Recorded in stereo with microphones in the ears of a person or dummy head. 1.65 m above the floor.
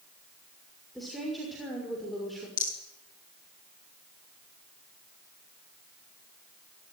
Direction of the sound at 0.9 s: Centre (ahead or behind).